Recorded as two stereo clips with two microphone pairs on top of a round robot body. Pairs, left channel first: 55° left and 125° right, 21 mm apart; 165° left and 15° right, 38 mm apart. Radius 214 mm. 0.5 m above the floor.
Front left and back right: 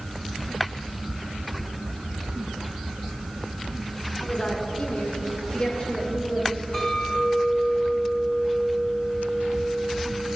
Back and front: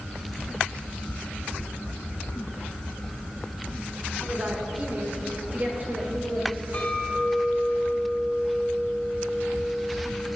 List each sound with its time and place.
4.2 s a woman speaking: 30° left, 2 m; by 6.6 s 15° left, 3.5 m
6.7 s a clink: 115° left, 5.5 m